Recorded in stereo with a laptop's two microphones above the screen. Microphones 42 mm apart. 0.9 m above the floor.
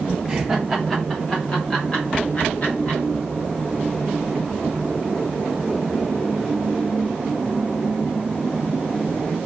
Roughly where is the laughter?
Centre.